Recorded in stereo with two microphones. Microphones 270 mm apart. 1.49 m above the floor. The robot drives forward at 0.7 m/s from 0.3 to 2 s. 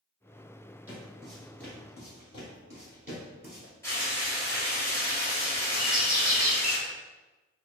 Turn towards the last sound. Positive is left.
turn(degrees=-30)  # may be behind; listen again after turning